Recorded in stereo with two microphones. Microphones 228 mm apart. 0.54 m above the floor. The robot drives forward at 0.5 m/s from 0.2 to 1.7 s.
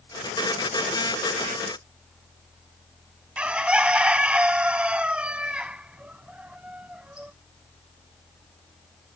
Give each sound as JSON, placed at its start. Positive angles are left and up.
{"t": 3.4, "sound": "a bird", "side_deg": -5}